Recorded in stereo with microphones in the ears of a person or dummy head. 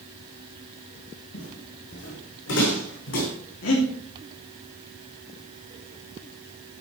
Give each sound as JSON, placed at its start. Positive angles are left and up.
{"t": 1.3, "sound": "footsteps", "side_deg": 75, "distance_m": 5.0}
{"t": 3.6, "sound": "breathing", "side_deg": 75, "distance_m": 2.5}